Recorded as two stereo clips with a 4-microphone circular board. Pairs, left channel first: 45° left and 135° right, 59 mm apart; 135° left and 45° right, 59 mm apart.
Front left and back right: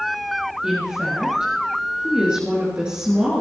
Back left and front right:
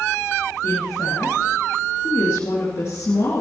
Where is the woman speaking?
155° left, 3 m.